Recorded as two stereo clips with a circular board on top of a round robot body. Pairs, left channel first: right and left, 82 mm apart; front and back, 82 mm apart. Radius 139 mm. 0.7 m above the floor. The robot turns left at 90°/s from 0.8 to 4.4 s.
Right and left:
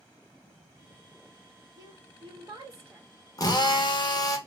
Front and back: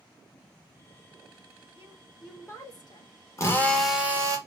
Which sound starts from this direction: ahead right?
A drill, at 3.4 s.